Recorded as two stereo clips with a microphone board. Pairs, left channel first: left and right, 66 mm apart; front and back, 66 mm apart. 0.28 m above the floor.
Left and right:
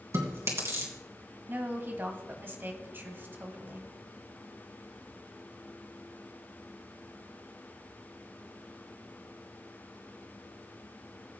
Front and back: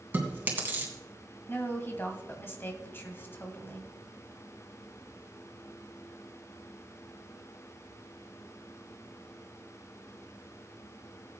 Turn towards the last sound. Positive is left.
turn(degrees=-45)